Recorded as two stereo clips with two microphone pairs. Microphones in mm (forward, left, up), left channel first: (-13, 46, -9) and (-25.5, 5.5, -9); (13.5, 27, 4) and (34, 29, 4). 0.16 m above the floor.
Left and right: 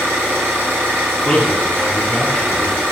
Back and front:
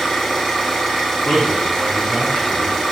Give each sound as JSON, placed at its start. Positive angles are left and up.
{"t": 0.0, "sound": "an engine running", "azimuth_deg": -105, "distance_m": 2.0}
{"t": 1.2, "sound": "a man speaking", "azimuth_deg": 165, "distance_m": 1.5}